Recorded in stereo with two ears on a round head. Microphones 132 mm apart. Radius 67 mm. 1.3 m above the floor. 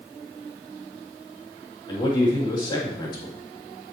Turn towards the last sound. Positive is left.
turn(degrees=30)  # may be behind; listen again after turning